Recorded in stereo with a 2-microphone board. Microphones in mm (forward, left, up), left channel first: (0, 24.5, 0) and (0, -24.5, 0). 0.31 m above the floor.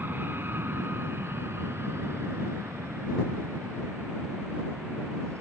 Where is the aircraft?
50° right (ahead or behind); by 5.4 s 75° right (ahead or behind).